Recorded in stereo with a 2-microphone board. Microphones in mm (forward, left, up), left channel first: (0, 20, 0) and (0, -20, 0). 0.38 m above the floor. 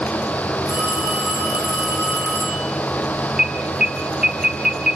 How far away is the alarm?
About 1.8 m.